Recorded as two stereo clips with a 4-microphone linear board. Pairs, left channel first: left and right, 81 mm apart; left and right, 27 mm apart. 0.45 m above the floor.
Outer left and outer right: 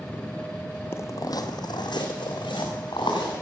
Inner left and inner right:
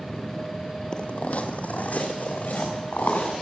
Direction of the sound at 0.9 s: 30° left (ahead or behind).